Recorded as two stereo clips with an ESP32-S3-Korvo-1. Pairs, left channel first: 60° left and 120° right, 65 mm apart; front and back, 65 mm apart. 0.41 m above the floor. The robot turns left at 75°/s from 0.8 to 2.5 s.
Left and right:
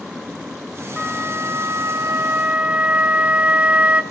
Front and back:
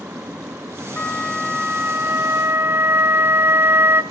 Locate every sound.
1.0 s a flute: 60° right, 0.8 m; by 4.0 s 175° right, 0.8 m